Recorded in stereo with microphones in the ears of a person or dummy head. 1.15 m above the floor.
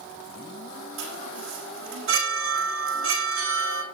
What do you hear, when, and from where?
1.0 s a chime: 70° right (ahead or behind), 9 m